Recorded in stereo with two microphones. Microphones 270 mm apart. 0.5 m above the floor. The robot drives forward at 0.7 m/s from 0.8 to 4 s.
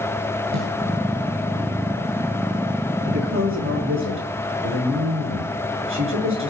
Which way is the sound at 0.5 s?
80° right.